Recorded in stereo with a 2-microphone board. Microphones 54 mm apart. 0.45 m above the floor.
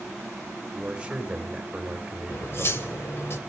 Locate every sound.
0.7 s a man speaking: 15° right (ahead or behind), 1.4 m
2.3 s cutlery clinking: 50° left (ahead or behind), 1.1 m